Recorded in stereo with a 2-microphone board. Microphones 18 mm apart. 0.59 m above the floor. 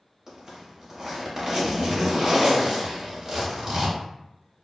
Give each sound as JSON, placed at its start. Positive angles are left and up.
{"t": 0.3, "sound": "a zipper", "side_deg": -30, "distance_m": 1.0}